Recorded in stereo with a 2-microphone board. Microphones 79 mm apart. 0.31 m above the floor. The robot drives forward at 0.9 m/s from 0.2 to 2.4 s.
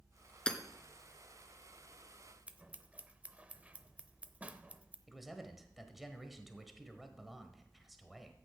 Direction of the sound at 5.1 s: Centre (ahead or behind).